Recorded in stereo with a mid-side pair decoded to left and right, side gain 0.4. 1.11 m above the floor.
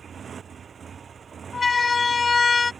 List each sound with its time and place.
0.0 s a motorcycle: 50° right; by 2.8 s 45° right
1.5 s a siren: 30° left